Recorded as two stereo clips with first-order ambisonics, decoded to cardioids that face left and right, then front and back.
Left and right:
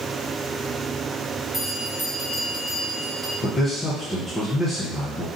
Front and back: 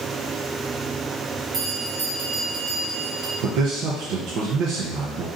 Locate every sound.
1.5 s a bell: 170° left, 1.1 m
3.4 s a man speaking: 160° left, 0.6 m